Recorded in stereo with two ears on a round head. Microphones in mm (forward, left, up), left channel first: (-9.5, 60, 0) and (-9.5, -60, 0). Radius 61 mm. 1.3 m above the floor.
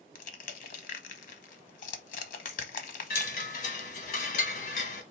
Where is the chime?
70° left (ahead or behind), 1.2 m.